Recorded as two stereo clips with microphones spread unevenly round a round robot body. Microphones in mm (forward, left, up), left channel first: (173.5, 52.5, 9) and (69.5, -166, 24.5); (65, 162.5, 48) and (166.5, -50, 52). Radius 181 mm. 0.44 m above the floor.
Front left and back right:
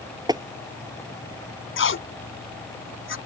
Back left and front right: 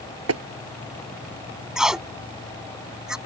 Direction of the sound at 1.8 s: 25° left.